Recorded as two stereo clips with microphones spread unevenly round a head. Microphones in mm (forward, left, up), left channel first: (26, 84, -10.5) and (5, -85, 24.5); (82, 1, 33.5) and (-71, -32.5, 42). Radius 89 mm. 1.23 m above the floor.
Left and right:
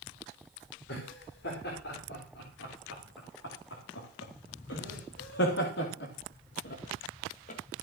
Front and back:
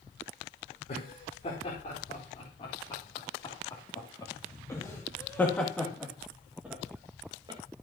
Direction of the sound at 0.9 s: 65° left.